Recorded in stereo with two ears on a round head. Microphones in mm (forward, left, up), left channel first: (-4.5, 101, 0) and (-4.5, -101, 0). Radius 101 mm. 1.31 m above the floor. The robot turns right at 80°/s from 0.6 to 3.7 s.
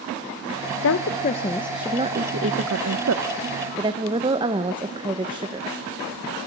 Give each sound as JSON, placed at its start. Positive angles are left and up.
{"t": 0.8, "sound": "a woman speaking", "azimuth_deg": 110, "distance_m": 0.8}